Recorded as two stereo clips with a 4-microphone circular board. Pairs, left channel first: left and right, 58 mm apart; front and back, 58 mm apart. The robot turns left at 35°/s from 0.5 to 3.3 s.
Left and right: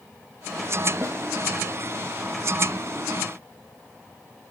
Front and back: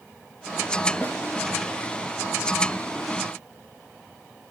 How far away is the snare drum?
About 4 m.